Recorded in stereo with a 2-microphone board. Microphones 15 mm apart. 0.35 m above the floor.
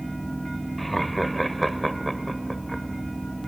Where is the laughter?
10° left (ahead or behind), 1.3 m.